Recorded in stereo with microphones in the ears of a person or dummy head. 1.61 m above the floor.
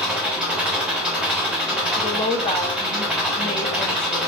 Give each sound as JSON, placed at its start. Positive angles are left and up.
{"t": 0.0, "sound": "an engine running", "side_deg": -5, "distance_m": 0.8}
{"t": 2.0, "sound": "a woman speaking", "side_deg": 20, "distance_m": 0.7}